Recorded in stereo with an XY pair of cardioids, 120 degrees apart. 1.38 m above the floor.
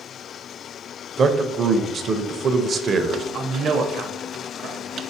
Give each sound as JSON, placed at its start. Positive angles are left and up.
{"t": 1.2, "sound": "a man speaking", "azimuth_deg": -40, "distance_m": 0.6}
{"t": 3.3, "sound": "a man speaking", "azimuth_deg": -50, "distance_m": 0.7}